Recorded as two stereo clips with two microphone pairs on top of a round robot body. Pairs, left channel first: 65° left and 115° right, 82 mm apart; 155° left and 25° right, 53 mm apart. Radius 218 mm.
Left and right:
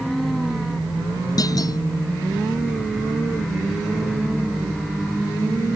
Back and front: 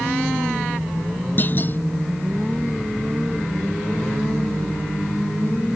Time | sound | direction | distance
1.4 | a clunk | 105° left | ?